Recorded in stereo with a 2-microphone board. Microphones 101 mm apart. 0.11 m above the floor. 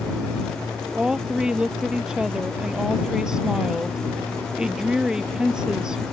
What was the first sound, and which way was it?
A woman speaking, 10° right (ahead or behind).